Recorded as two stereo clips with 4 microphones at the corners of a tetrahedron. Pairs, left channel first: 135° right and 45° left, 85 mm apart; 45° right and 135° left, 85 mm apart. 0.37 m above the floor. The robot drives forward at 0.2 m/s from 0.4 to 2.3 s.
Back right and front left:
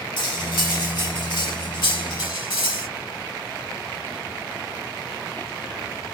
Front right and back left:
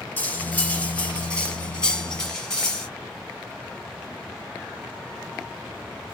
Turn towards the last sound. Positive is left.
turn(degrees=-130)